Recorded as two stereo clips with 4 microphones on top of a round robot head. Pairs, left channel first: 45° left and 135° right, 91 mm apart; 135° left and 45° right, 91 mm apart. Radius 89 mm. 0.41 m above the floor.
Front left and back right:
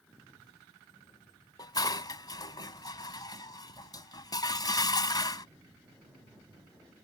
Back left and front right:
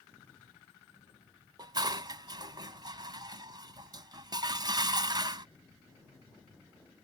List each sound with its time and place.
1.6 s dishes clattering: straight ahead